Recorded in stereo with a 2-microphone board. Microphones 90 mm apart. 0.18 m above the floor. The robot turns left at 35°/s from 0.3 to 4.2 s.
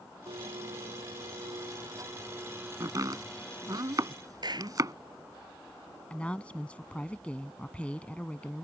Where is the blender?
80° right; by 3.8 s 155° left.